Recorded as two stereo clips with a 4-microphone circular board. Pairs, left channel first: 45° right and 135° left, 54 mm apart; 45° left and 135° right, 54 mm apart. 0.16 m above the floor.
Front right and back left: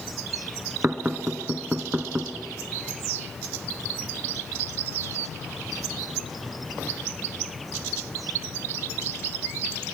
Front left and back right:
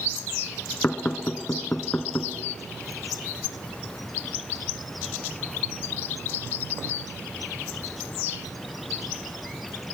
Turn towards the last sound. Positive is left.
turn(degrees=90)